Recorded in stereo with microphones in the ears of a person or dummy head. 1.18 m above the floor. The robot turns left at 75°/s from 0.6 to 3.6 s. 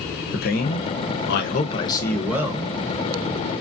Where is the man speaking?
120° left, 0.7 m; by 2.7 s 35° right, 0.7 m.